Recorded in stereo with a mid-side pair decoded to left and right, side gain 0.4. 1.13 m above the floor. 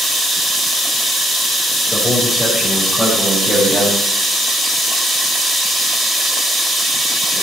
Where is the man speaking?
5° left, 5 m; by 4.0 s 5° right, 7 m.